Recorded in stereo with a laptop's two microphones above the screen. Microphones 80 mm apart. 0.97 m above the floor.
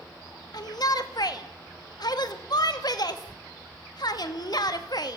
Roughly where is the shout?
Left.